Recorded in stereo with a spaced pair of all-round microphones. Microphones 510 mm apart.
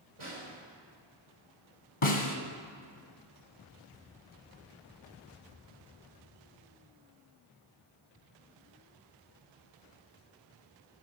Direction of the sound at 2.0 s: 70° left (ahead or behind).